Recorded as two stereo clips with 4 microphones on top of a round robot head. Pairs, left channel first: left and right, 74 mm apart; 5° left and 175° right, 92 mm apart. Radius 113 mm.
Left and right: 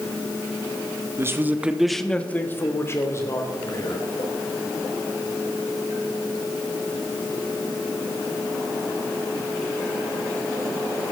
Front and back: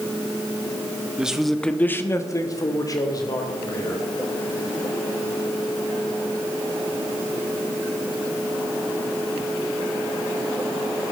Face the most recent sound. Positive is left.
turn(degrees=45)